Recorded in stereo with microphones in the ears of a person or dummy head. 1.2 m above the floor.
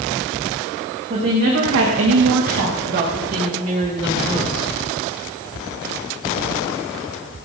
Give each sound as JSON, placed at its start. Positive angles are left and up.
{"t": 1.1, "sound": "a woman speaking", "side_deg": -35, "distance_m": 2.0}